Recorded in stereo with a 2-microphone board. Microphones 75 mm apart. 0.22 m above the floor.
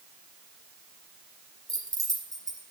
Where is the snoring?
No snoring in this recording.